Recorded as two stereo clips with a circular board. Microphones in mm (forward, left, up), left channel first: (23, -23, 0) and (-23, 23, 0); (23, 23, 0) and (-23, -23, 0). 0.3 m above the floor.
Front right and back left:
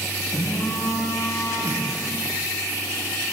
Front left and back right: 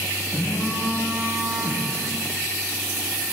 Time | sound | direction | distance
0.3 | a phone buzzing | 75° right | 4 m